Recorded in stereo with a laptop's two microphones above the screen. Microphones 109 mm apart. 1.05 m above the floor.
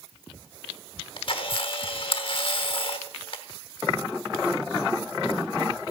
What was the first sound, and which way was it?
A camera shutter, 50° left (ahead or behind).